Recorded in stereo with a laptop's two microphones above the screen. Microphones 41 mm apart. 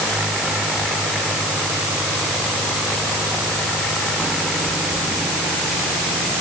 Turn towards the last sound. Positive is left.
No sound to turn to.